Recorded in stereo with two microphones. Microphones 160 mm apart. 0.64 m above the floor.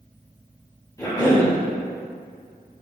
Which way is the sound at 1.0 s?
20° left (ahead or behind).